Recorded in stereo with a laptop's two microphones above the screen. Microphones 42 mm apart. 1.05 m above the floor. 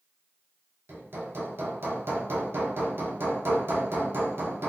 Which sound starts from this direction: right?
Hammering, at 0.9 s.